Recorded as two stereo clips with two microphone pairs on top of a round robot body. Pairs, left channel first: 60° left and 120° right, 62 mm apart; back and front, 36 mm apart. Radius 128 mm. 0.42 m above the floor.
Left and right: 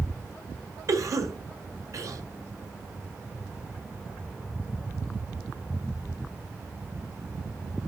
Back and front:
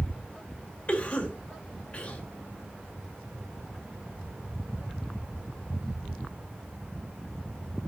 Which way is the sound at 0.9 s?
125° right.